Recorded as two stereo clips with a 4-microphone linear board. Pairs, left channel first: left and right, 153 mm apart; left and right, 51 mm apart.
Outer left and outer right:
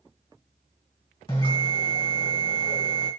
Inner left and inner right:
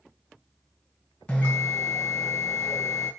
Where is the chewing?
I don't hear chewing.